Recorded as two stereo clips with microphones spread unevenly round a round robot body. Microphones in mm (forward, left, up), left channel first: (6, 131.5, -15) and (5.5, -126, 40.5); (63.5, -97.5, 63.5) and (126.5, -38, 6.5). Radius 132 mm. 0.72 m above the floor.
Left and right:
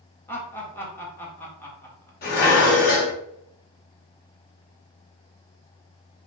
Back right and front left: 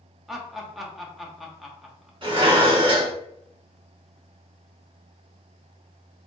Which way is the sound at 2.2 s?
35° left.